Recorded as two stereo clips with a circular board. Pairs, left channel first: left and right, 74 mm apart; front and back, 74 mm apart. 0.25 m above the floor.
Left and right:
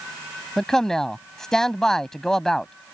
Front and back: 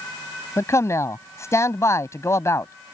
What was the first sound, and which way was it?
A man speaking, 10° left.